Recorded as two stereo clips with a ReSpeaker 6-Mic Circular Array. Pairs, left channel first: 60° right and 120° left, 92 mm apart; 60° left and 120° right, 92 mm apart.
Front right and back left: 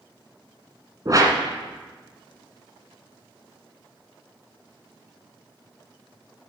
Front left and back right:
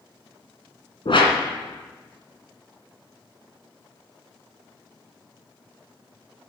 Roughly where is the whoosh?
Left.